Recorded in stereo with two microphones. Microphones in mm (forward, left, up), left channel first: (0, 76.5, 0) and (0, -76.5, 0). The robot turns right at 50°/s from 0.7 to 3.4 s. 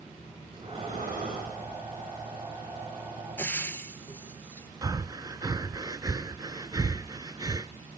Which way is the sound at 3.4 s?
15° left (ahead or behind).